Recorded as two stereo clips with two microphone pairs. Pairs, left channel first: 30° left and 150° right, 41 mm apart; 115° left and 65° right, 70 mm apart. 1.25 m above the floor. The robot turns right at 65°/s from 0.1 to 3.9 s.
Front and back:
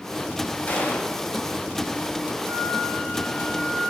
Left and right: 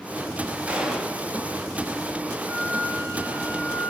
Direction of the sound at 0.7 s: Straight ahead.